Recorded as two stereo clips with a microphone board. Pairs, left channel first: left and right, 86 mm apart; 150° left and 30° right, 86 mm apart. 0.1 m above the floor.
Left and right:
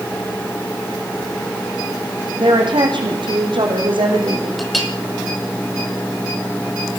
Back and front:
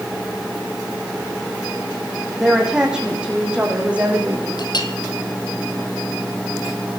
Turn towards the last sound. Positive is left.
turn(degrees=180)